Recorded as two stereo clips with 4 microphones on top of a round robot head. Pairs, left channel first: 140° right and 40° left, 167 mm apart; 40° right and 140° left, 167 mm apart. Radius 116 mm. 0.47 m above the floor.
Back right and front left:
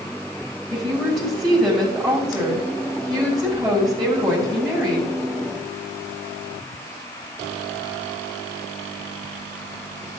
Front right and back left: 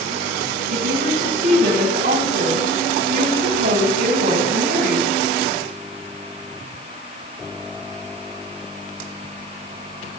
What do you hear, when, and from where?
0.7 s a woman speaking: 130° left, 3.5 m